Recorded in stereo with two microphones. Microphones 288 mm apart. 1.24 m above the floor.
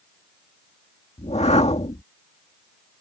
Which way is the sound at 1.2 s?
20° left (ahead or behind).